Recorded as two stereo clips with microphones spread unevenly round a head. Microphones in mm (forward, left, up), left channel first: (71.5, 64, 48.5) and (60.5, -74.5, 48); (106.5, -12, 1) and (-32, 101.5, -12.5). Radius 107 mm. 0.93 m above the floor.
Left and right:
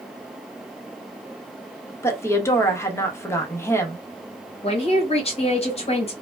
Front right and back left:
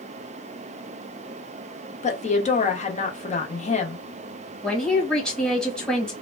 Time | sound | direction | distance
2.0 | a woman speaking | 15° left | 0.9 m
4.6 | a man speaking | 50° left | 1.4 m